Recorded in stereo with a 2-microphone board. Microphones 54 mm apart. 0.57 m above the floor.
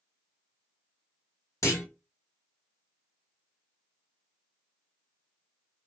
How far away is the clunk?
About 1.6 m.